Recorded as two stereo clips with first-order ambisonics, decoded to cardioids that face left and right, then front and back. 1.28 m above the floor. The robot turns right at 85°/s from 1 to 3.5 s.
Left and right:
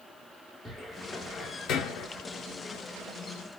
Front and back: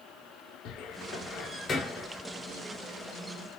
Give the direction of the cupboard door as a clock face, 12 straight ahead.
12 o'clock.